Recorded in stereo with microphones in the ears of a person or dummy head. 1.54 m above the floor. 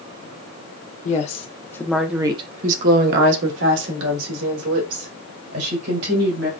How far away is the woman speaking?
About 1.0 m.